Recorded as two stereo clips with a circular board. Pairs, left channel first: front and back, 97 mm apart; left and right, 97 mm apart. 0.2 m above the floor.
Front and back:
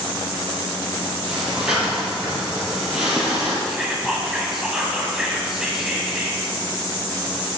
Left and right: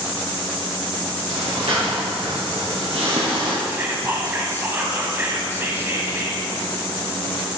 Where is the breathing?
100° right, 3 m.